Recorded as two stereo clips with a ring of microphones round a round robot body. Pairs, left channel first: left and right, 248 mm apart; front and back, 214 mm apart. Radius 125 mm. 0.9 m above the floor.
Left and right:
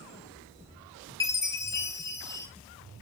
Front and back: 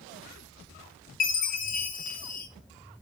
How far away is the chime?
About 0.8 m.